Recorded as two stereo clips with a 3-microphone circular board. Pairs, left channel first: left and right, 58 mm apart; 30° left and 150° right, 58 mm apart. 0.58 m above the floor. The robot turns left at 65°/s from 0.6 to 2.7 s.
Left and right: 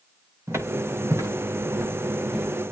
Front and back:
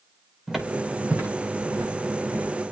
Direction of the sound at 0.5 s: 60° right.